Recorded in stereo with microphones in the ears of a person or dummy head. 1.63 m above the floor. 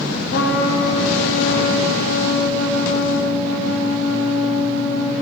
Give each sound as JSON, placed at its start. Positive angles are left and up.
{"t": 0.3, "sound": "a trumpet", "side_deg": 55, "distance_m": 1.0}